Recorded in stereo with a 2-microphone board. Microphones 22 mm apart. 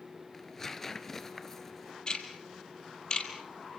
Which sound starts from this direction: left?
Ticking, at 2.1 s.